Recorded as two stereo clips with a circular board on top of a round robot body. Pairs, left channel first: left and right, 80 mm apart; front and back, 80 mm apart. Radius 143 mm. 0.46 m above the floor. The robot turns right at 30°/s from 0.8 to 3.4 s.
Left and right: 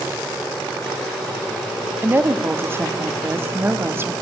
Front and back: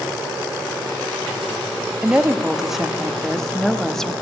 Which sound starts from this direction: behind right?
A woman speaking, at 2.0 s.